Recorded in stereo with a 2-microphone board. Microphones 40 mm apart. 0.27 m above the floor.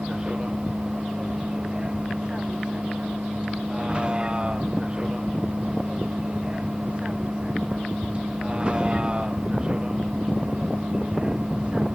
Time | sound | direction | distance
0.0 | a vehicle | 25° right (ahead or behind) | ?